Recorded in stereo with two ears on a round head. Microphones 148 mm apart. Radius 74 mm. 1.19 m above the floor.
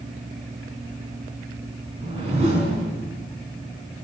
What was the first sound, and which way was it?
A whoosh, 40° right (ahead or behind).